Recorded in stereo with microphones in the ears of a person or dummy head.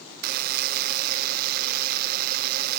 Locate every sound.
0.2 s a buzzer: 55° right (ahead or behind), 0.5 m